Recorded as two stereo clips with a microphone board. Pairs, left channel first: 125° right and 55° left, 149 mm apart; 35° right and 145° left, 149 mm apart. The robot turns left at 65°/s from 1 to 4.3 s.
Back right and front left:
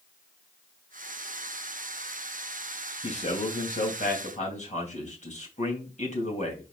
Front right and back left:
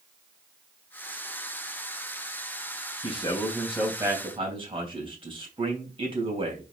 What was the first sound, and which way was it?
A man speaking, 75° right.